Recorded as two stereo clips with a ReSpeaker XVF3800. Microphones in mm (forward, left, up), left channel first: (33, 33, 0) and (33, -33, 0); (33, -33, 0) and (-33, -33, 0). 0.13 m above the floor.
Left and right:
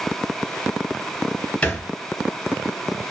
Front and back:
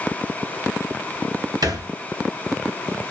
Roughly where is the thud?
Behind.